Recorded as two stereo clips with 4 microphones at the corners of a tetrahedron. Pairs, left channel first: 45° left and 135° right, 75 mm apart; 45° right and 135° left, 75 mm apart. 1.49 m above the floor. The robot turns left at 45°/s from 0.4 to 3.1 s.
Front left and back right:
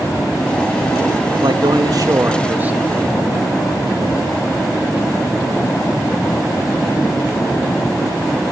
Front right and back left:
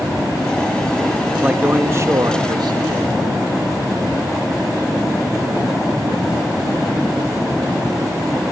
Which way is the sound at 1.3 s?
145° right.